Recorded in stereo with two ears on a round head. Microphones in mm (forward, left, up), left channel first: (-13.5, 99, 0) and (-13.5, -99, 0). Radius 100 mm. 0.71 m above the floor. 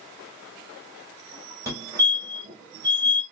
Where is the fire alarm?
10° right (ahead or behind), 1.7 m.